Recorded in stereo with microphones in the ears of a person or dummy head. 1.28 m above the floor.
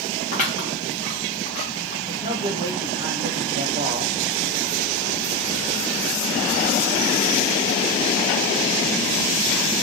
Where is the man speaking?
20° right (ahead or behind), 0.8 m.